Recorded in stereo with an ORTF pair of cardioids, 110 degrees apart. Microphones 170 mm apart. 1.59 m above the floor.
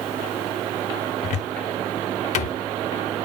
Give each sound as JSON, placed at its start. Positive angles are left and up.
{"t": 1.2, "sound": "a cupboard door", "azimuth_deg": 50, "distance_m": 0.6}